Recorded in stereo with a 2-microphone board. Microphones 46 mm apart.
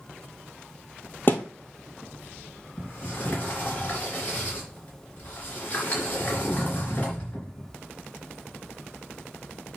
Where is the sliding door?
35° left (ahead or behind), 3.5 m.